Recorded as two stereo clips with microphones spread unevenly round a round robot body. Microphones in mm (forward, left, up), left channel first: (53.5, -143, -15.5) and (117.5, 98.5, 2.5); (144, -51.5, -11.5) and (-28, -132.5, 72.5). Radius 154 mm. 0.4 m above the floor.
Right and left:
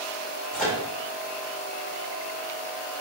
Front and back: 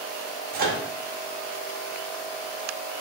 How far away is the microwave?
About 0.5 m.